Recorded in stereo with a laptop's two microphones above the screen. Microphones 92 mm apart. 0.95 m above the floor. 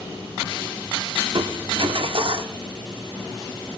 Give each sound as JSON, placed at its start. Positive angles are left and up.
{"t": 1.3, "sound": "crushing", "side_deg": -60, "distance_m": 0.8}